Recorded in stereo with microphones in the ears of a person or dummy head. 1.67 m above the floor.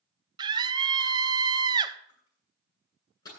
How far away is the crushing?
About 9.5 m.